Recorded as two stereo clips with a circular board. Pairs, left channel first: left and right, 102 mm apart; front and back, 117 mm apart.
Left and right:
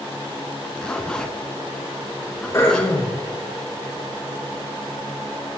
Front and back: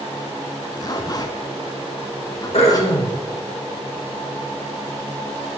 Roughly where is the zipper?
Ahead.